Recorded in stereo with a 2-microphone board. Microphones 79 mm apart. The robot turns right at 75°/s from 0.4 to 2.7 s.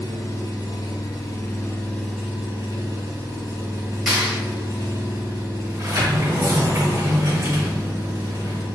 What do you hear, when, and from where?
0.0 s an engine running: 50° left, 1.3 m; by 8.8 s 135° right, 1.3 m
4.1 s a clap: 5° right (ahead or behind), 1.4 m
5.7 s a sliding door: 40° right (ahead or behind), 0.7 m